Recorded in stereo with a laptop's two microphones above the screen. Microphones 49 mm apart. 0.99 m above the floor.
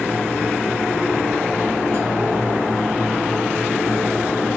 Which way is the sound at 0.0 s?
60° right (ahead or behind).